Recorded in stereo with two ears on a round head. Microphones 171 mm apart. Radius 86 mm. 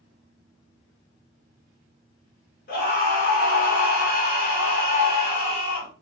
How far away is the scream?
About 1.5 m.